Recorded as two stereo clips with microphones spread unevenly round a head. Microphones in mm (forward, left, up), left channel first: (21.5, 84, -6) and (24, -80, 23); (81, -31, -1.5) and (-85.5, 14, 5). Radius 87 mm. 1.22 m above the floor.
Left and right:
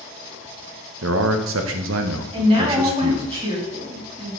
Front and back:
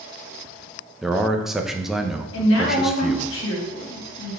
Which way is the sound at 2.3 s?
30° right.